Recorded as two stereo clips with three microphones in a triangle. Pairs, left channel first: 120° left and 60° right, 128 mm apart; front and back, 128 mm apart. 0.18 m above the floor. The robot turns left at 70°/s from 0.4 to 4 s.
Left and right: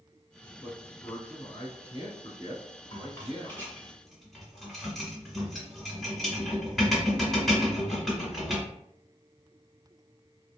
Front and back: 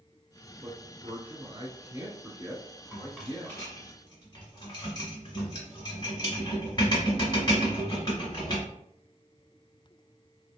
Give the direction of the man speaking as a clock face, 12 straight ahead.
5 o'clock.